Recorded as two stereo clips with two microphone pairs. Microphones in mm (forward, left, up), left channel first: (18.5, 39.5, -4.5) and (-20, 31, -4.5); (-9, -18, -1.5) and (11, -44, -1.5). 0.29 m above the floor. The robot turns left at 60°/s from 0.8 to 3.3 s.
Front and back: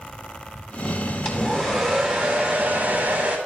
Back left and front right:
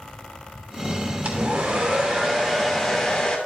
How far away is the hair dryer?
About 2.5 m.